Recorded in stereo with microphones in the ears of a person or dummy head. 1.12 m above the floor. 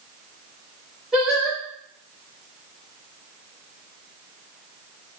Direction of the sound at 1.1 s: Centre (ahead or behind).